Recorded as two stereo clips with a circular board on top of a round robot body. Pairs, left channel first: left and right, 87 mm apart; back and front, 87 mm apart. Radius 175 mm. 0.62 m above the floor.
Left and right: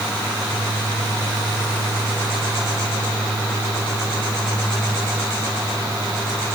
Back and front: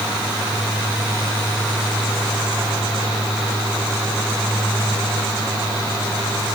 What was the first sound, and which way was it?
Only background noise.